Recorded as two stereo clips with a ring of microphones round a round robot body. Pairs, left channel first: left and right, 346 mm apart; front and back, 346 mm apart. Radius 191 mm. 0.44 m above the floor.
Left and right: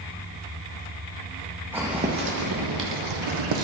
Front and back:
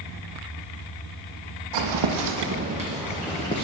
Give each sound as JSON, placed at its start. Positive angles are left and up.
{"t": 1.7, "sound": "footsteps", "azimuth_deg": -175, "distance_m": 0.9}